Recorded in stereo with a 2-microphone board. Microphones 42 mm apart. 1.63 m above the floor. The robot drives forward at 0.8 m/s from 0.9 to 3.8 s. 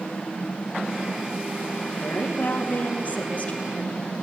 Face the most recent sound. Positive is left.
turn(degrees=35)  # may be behind; listen again after turning